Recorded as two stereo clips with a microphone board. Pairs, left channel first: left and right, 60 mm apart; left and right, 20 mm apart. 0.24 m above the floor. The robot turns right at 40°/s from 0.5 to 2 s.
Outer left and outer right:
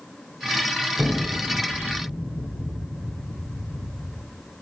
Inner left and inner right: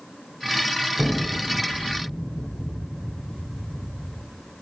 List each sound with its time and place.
1.0 s an explosion: 20° left (ahead or behind), 8 m; by 4.2 s 60° left (ahead or behind), 8 m